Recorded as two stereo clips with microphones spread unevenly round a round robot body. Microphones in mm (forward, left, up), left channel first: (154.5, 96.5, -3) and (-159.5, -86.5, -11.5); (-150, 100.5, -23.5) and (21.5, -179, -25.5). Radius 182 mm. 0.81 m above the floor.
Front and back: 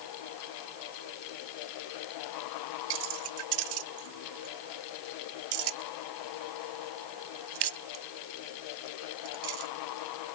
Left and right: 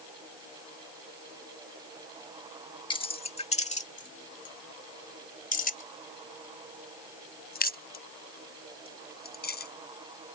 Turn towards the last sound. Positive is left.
turn(degrees=180)